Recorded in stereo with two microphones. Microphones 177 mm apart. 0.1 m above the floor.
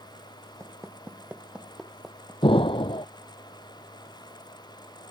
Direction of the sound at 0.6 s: 15° right (ahead or behind).